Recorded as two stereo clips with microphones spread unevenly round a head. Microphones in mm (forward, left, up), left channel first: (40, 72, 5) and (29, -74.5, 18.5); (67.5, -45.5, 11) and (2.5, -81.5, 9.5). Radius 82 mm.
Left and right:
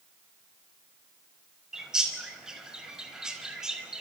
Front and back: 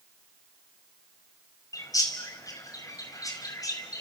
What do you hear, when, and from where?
1.7 s a bird: 10° right, 4.5 m